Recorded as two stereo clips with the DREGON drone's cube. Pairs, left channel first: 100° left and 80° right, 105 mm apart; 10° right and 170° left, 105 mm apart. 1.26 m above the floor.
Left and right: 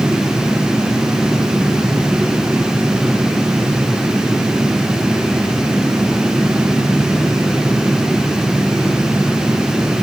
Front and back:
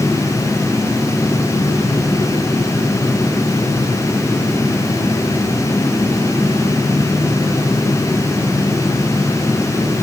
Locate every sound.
Only background noise.